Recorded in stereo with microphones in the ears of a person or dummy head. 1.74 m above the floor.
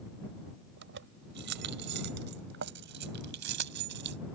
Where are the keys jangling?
65° right (ahead or behind).